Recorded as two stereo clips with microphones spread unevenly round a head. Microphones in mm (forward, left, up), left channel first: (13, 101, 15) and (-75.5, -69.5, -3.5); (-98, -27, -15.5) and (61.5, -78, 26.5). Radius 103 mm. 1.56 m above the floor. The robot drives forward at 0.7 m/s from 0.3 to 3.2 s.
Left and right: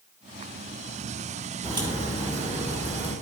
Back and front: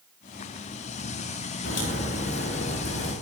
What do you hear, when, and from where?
1.6 s a crack: 175° left, 4.5 m